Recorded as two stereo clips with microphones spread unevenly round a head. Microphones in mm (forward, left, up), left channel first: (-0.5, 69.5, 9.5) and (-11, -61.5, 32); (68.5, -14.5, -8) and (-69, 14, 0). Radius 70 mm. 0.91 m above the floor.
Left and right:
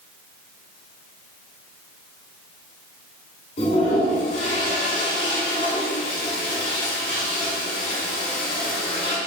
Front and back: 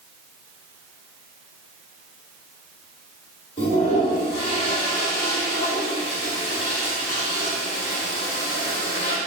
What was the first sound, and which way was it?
A toilet flushing, 40° left.